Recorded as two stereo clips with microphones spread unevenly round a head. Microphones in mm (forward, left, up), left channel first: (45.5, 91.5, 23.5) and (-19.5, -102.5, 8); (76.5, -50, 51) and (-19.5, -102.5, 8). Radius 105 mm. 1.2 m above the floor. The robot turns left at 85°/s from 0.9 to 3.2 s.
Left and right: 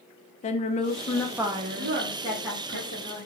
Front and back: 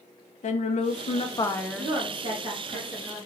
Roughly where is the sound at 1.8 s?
Behind right.